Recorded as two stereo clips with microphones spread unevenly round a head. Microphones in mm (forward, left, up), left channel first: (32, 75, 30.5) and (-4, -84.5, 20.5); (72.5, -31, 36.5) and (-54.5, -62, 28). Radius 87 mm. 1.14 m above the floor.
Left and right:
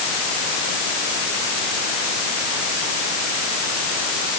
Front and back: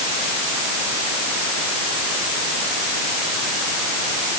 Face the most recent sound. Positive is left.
No sound to turn to.